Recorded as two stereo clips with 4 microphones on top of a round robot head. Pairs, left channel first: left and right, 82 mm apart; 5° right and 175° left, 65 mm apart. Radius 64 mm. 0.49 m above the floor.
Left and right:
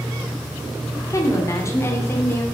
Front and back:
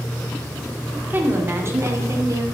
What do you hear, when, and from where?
1.1 s a woman speaking: 125° left, 1.5 m; by 2.5 s 150° left, 2 m